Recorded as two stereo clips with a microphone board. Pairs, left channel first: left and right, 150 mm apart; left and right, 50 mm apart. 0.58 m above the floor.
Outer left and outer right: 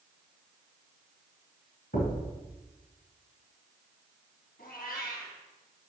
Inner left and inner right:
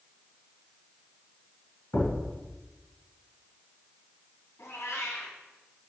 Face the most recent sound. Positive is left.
turn(degrees=85)